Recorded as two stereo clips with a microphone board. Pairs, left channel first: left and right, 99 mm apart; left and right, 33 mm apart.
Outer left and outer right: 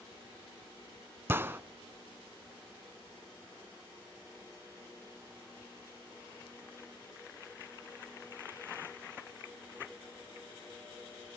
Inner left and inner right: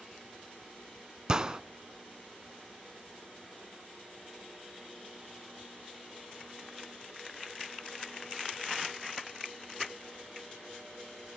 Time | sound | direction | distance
1.3 | a gunshot | 20° right (ahead or behind) | 0.5 m